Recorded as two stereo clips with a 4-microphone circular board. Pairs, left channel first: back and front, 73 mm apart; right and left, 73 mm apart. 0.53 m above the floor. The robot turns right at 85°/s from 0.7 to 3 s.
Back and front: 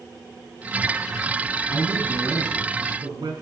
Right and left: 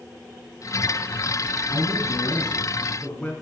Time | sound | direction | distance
1.7 | a man speaking | 130° right | 6 m